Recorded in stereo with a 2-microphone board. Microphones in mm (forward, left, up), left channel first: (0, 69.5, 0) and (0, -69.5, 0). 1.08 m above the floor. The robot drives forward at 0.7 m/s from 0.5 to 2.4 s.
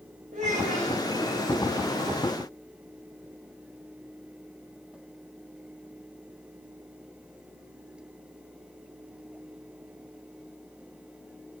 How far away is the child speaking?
About 3 m.